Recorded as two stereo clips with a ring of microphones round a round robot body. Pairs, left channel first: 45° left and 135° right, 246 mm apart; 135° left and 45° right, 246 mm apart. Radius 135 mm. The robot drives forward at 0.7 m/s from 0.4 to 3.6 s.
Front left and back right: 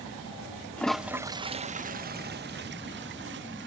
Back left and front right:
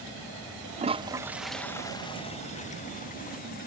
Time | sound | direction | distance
0.8 | a toilet flushing | 30° right | ?